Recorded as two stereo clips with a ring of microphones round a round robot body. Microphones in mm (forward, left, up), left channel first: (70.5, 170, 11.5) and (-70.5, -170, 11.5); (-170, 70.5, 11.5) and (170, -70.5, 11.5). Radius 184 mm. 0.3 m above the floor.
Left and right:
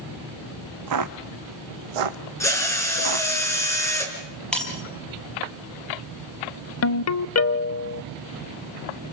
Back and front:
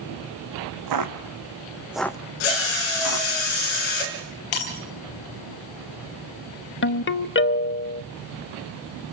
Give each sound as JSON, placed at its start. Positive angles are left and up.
{"t": 0.9, "sound": "footsteps", "azimuth_deg": -65, "distance_m": 1.6}
{"t": 2.4, "sound": "a drill", "azimuth_deg": 150, "distance_m": 5.0}
{"t": 4.5, "sound": "breaking glass", "azimuth_deg": 155, "distance_m": 5.0}
{"t": 6.8, "sound": "a ringtone", "azimuth_deg": 105, "distance_m": 0.7}